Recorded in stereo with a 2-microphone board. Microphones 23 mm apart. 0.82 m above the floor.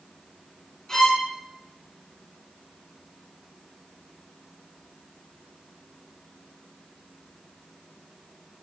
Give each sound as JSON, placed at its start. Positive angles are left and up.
{"t": 0.9, "sound": "a violin", "side_deg": 30, "distance_m": 4.0}